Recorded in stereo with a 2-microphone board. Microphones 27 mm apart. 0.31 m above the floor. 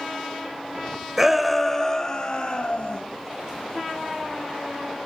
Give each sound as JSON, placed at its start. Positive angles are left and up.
{"t": 1.2, "sound": "a shout", "side_deg": -15, "distance_m": 1.2}